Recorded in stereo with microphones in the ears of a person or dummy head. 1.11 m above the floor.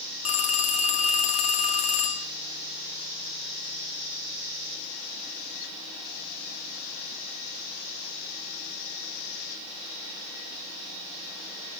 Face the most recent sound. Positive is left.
turn(degrees=35)  # may be behind; listen again after turning